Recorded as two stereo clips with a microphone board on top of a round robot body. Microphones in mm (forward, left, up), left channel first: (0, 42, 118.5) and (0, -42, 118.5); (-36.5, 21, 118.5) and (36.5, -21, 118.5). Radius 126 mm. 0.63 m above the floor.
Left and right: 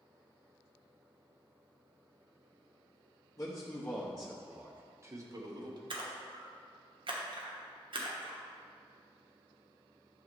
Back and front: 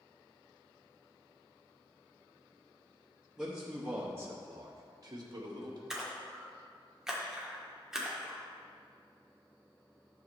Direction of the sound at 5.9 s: 115° right.